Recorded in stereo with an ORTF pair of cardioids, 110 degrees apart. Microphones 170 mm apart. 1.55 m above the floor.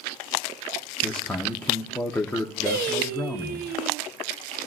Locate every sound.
1.0 s a man speaking: 10° left, 1.1 m
2.7 s singing: 70° right, 0.8 m